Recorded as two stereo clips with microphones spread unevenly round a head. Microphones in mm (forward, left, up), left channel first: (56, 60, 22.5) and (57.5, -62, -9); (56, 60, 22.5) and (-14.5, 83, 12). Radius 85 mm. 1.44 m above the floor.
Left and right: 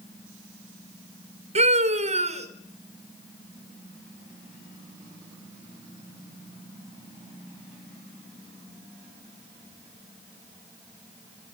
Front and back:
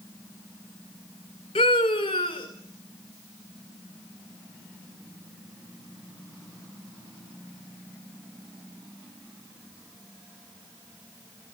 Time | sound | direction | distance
1.6 | a scream | 60° right | 4.5 m